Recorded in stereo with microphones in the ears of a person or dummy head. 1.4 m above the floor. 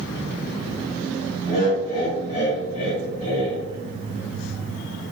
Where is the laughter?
55° left (ahead or behind), 1.9 m.